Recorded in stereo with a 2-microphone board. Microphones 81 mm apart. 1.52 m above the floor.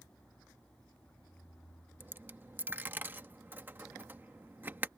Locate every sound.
2.0 s a dropped coin: 25° right (ahead or behind)